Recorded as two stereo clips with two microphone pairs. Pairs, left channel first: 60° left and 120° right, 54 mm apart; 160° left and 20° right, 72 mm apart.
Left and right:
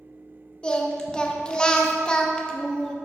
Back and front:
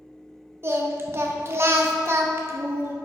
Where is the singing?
5° right, 0.8 m.